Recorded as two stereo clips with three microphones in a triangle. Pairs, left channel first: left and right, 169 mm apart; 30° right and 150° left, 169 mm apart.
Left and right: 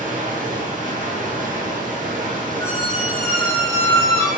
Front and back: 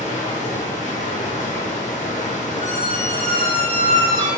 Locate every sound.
0.0 s running water: 65° right, 0.7 m
2.6 s a squeak: 15° left, 1.6 m